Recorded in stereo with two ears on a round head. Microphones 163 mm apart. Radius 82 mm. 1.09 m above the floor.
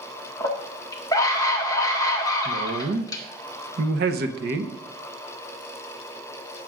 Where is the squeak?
I don't hear a squeak.